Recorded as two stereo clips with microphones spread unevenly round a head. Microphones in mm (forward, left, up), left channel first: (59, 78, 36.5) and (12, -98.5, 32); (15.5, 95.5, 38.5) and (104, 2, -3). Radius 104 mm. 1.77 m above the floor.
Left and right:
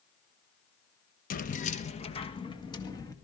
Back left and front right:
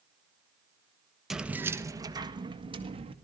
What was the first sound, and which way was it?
Keys jangling, 60° left.